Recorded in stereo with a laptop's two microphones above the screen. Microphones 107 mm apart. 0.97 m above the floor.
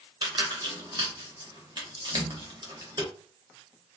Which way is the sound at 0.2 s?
45° right (ahead or behind).